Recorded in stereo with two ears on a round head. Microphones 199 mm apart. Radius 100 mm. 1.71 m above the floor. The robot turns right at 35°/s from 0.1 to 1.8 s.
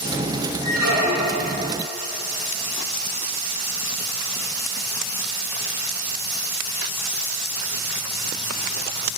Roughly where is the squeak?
Right.